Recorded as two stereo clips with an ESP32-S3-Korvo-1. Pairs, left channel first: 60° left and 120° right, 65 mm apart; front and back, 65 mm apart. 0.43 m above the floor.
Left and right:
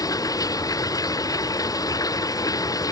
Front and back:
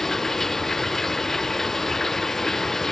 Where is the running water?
85° left.